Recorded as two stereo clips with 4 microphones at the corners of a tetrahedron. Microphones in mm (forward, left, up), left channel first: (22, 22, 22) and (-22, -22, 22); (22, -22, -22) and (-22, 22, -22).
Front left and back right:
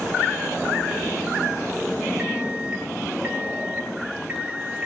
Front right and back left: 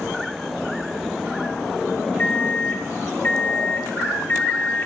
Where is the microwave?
80° right, 0.8 m.